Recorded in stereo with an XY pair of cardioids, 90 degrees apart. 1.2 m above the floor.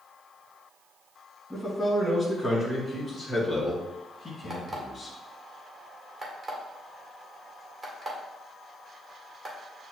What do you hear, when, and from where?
1.5 s a man speaking: 5° right, 1.6 m; by 5.1 s 35° left, 2.5 m
4.5 s an alarm clock: 20° right, 1.7 m